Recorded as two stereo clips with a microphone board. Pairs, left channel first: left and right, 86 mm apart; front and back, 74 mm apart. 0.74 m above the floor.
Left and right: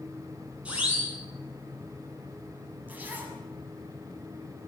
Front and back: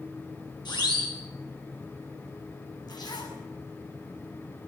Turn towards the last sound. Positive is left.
turn(degrees=-20)